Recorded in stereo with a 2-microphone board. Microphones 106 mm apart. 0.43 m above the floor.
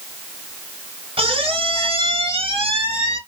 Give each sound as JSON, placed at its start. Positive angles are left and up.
{"t": 1.2, "sound": "a squeak", "side_deg": -85, "distance_m": 1.3}